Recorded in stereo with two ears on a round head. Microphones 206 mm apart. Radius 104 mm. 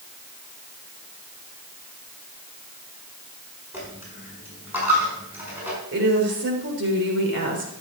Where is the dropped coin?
10° right (ahead or behind), 5 m.